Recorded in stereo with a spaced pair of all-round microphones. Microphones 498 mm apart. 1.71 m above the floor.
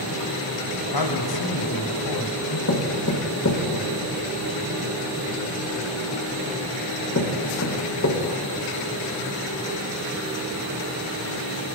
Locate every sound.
0.9 s a man speaking: 45° left (ahead or behind), 1.0 m
2.7 s knocking: 35° left (ahead or behind), 1.0 m